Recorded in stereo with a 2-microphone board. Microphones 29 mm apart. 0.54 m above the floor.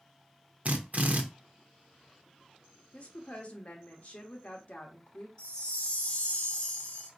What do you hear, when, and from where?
0.7 s a drill: 55° right (ahead or behind), 0.6 m
2.9 s a woman speaking: 50° left (ahead or behind), 1.0 m
5.4 s a chime: 35° left (ahead or behind), 1.6 m